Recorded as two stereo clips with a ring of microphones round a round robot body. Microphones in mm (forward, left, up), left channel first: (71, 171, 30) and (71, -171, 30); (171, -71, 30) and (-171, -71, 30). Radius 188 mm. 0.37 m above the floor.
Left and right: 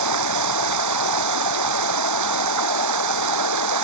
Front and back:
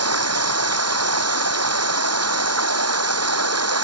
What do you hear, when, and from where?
0.0 s running water: 135° right